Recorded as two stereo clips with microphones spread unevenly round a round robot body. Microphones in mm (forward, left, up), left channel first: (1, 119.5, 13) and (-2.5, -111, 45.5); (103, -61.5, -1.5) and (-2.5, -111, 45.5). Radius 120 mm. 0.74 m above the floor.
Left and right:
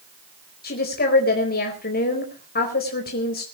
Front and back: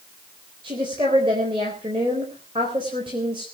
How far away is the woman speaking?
About 4 m.